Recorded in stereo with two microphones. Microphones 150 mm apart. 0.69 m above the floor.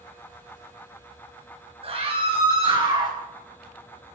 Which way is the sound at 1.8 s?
40° right (ahead or behind).